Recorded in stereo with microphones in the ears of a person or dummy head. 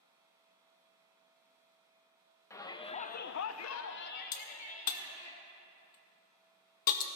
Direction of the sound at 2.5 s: 15° left (ahead or behind).